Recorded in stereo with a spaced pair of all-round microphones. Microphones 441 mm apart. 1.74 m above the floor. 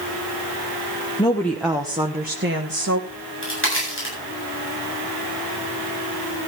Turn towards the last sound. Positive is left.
turn(degrees=25)  # may be behind; listen again after turning